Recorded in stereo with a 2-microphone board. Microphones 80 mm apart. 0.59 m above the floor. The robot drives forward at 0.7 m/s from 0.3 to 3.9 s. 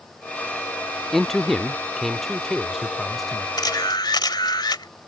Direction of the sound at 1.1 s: 5° left (ahead or behind).